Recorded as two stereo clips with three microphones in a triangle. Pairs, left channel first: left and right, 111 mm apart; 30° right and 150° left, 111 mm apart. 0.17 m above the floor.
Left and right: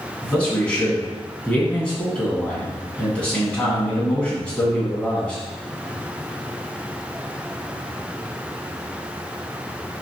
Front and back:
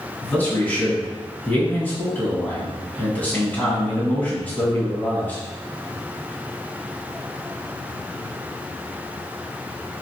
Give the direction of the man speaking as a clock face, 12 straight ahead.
11 o'clock.